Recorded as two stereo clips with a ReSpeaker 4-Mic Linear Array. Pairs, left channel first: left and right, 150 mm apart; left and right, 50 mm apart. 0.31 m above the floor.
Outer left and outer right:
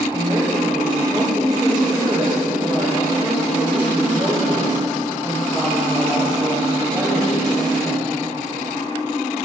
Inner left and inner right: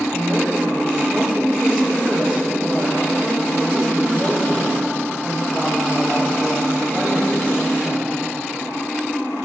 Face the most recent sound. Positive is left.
turn(degrees=0)  # may be behind; listen again after turning